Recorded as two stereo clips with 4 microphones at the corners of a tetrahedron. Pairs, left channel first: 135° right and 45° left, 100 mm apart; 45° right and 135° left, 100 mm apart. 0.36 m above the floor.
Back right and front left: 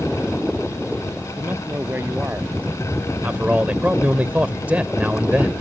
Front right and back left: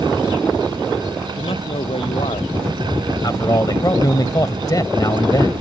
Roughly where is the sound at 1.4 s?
Ahead right.